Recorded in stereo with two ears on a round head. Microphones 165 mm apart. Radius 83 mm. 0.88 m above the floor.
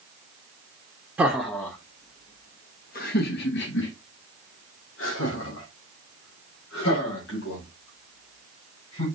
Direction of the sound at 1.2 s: 5° right (ahead or behind).